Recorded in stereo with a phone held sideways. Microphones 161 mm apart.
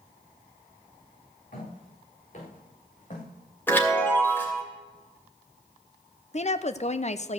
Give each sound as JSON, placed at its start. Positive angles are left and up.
{"t": 1.5, "sound": "footsteps", "side_deg": 60, "distance_m": 5.5}
{"t": 3.7, "sound": "a chime", "side_deg": 15, "distance_m": 2.5}
{"t": 6.3, "sound": "a woman speaking", "side_deg": 45, "distance_m": 0.6}